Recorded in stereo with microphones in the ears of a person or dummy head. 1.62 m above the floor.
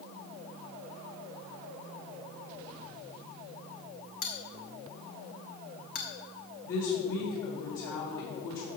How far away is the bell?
About 1.4 m.